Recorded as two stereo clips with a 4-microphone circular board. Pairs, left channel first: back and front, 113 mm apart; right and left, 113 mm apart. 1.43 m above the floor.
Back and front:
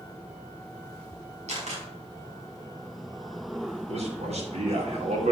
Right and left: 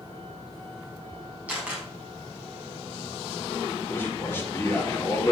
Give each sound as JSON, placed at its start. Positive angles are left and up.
{"t": 1.5, "sound": "a camera shutter", "azimuth_deg": 15, "distance_m": 5.5}
{"t": 3.9, "sound": "a man speaking", "azimuth_deg": -15, "distance_m": 4.5}